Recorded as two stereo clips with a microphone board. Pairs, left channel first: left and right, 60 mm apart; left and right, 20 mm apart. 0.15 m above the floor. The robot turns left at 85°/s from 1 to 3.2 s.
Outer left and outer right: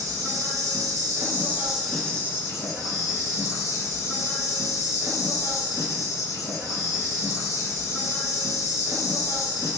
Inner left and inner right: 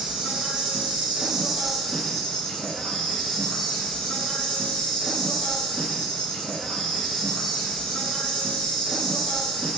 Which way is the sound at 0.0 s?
105° right.